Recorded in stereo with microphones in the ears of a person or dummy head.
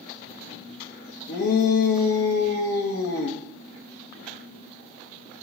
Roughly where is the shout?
Left.